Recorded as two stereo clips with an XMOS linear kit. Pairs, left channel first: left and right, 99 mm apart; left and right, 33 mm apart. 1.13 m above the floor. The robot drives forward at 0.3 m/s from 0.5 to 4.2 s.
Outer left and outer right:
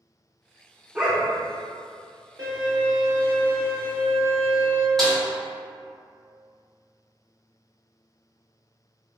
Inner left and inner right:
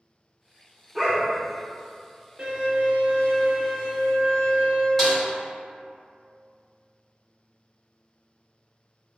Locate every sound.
0.9 s a dog barking: 10° right (ahead or behind), 0.7 m
2.4 s a violin: 40° right (ahead or behind), 1.2 m; by 4.9 s 65° right (ahead or behind), 0.8 m
5.0 s a snare drum: 5° left (ahead or behind), 1.5 m